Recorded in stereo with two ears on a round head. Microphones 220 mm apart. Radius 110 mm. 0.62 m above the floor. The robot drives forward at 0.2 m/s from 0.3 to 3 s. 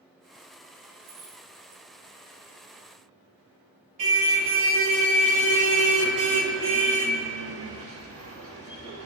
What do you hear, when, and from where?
1.0 s keys jangling: 75° right (ahead or behind), 3 m
4.0 s a car horn: 65° right (ahead or behind), 5 m